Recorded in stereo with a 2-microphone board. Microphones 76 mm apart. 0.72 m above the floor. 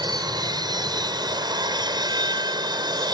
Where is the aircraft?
60° right (ahead or behind); by 3.1 s 65° right (ahead or behind).